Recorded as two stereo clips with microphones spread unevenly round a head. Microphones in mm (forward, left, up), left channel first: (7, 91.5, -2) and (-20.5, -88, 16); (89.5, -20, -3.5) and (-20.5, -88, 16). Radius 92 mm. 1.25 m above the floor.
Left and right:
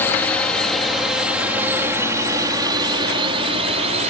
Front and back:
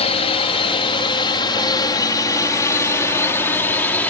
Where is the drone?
5° left; by 4.1 s 45° right.